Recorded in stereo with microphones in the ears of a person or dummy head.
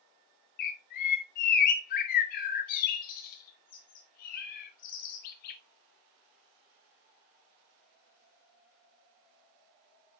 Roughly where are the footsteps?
I don't hear footsteps.